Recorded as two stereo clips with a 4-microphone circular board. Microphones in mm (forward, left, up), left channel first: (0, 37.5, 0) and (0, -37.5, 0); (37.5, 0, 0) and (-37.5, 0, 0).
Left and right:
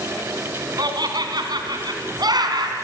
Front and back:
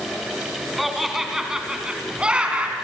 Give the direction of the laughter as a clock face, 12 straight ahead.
3 o'clock.